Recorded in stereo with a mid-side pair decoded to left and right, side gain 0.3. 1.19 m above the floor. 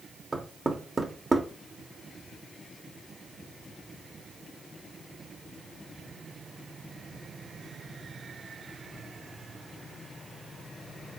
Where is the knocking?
35° right, 0.8 m.